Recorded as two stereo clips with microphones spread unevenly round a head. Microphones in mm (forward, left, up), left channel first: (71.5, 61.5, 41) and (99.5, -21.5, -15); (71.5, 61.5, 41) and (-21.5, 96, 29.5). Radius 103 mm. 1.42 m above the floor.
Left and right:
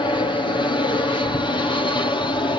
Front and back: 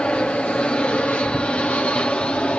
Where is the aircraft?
60° left.